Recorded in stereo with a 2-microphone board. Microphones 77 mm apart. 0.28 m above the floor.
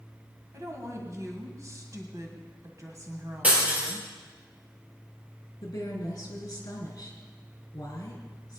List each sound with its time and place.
0.5 s a woman speaking: 40° right (ahead or behind), 1.8 m
3.4 s breaking glass: 20° right (ahead or behind), 4 m
5.6 s a woman speaking: 50° left (ahead or behind), 3.5 m